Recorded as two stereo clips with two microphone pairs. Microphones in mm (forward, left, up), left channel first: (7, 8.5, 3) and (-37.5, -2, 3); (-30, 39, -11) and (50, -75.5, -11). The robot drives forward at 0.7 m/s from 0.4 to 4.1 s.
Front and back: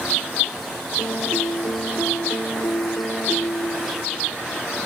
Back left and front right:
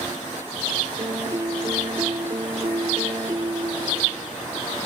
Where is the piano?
Straight ahead; by 4.2 s 5° left.